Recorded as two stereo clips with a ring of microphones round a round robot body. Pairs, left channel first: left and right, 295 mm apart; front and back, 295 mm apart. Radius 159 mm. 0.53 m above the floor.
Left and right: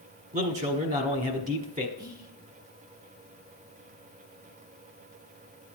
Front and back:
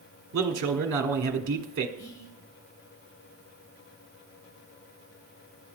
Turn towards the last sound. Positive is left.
turn(degrees=-15)